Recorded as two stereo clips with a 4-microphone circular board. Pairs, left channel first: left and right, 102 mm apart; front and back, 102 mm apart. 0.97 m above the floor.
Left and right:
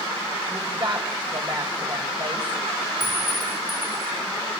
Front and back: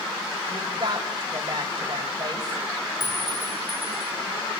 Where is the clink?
45° left, 9 m.